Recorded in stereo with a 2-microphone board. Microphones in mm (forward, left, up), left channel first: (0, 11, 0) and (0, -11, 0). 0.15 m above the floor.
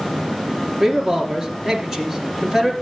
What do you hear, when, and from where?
0.8 s a man speaking: 25° right (ahead or behind), 2.5 m